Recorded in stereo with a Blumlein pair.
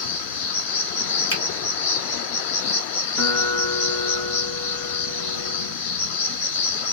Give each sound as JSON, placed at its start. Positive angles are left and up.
{"t": 0.0, "sound": "an insect", "azimuth_deg": 55, "distance_m": 0.8}
{"t": 1.3, "sound": "a finger snap", "azimuth_deg": 50, "distance_m": 1.3}
{"t": 3.2, "sound": "a guitar", "azimuth_deg": 40, "distance_m": 1.1}